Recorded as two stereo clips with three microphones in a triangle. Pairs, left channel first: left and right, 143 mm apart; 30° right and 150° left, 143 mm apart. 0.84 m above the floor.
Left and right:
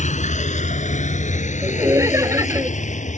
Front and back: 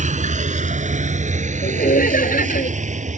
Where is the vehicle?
120° left.